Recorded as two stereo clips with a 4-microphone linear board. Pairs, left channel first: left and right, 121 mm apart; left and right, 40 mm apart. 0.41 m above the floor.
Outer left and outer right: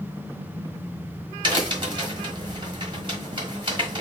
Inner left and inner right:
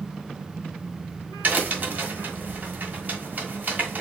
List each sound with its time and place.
1.4 s a crack: 40° right (ahead or behind), 1.2 m